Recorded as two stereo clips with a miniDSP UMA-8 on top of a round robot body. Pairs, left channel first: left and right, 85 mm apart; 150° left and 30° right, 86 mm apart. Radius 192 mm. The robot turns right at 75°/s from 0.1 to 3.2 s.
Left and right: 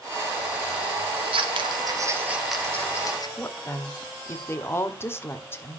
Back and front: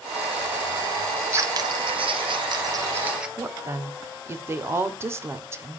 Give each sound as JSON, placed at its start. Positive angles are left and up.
{"t": 1.2, "sound": "scissors", "azimuth_deg": -105, "distance_m": 2.0}
{"t": 3.4, "sound": "a woman speaking", "azimuth_deg": 30, "distance_m": 1.9}